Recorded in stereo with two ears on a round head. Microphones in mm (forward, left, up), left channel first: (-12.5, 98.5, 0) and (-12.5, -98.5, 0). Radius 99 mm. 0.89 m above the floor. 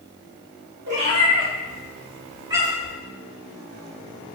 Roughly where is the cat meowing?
Right.